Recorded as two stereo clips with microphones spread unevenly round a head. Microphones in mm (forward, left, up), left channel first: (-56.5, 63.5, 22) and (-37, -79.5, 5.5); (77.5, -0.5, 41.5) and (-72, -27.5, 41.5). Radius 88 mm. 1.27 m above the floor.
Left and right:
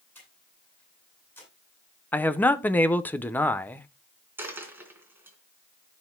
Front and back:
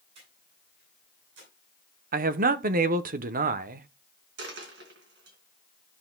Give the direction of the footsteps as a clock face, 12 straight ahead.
No footsteps in this recording.